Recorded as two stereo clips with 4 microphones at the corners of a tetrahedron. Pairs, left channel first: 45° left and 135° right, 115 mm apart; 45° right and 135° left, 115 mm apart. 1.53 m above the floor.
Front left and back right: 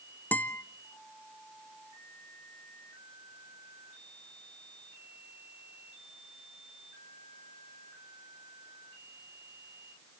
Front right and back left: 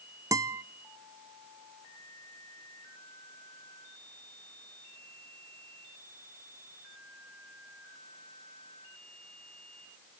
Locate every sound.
0.3 s a guitar: 100° left, 0.5 m